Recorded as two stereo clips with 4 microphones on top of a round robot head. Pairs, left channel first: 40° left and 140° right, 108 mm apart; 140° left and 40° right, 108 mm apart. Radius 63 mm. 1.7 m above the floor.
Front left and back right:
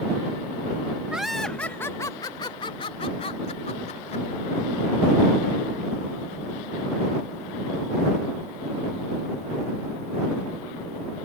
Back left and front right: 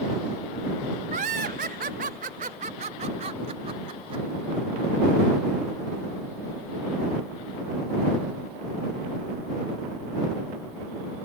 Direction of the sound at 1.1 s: 60° right.